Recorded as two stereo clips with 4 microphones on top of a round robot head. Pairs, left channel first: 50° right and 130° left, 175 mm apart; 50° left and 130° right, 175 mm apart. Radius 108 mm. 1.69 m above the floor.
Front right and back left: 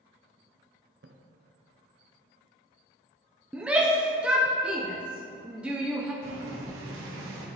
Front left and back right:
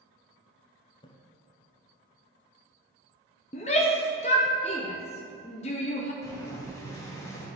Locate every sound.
1.0 s a splash: 105° left, 0.5 m
3.5 s a shout: 50° left, 0.6 m
6.2 s boiling: 120° left, 1.3 m